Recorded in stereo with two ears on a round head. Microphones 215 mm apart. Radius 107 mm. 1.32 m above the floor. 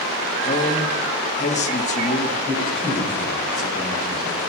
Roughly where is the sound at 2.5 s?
Centre.